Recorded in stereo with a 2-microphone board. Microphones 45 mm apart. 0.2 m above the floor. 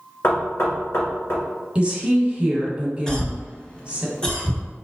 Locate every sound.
0.2 s knocking: 60° left (ahead or behind), 1.8 m
1.8 s a woman speaking: 25° right (ahead or behind), 1.0 m
3.1 s a cough: 15° left (ahead or behind), 1.0 m